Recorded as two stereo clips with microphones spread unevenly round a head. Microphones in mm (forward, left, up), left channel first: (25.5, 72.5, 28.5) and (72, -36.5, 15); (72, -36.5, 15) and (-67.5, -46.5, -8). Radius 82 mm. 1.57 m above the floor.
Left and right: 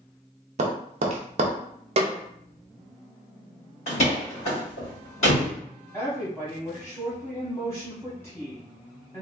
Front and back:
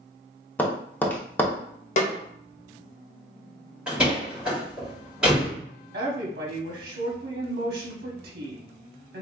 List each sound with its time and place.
0.6 s tapping: 60° right, 0.6 m
2.0 s a snare drum: 30° right, 0.7 m
3.9 s a door slam: 95° left, 2 m
5.9 s a woman speaking: 170° right, 0.9 m